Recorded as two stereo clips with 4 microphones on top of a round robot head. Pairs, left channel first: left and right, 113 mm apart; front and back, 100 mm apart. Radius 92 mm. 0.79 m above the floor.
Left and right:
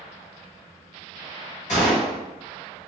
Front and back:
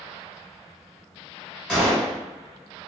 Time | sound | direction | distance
1.7 | a gunshot | 80° left | 1.9 m